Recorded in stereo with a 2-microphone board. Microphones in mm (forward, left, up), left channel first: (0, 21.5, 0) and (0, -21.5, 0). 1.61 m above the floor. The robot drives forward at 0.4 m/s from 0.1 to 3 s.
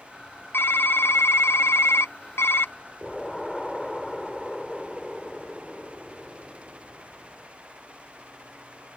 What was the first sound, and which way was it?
Typing on a keyboard, 60° left (ahead or behind).